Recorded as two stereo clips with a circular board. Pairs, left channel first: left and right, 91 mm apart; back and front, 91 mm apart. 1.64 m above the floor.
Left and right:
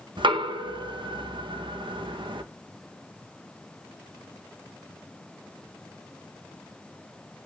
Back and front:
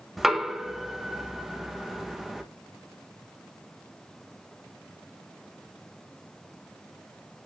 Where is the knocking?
90° right, 1.2 m.